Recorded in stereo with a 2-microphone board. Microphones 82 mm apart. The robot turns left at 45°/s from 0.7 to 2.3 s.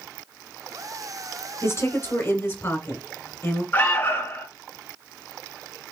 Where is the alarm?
30° left (ahead or behind), 1.5 m.